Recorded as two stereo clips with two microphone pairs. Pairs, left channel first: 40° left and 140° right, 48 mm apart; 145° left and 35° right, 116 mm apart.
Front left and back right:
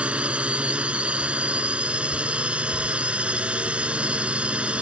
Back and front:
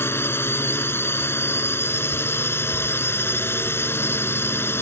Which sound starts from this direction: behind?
A drone, at 0.0 s.